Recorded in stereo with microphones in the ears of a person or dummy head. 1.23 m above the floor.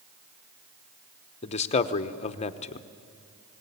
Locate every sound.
1.4 s a man speaking: 35° left (ahead or behind), 0.9 m